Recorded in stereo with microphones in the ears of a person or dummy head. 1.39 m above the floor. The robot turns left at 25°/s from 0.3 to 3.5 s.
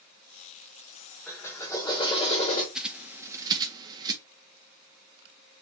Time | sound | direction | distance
1.3 | a drill | 175° left | 1.3 m
2.8 | a bird | centre (ahead or behind) | 1.1 m